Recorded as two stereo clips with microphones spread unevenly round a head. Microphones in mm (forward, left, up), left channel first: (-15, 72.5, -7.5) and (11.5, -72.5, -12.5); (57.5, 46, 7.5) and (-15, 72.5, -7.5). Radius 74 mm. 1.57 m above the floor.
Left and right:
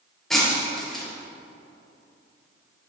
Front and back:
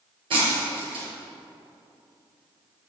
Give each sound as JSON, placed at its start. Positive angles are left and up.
{"t": 0.3, "sound": "breaking glass", "azimuth_deg": -175, "distance_m": 3.5}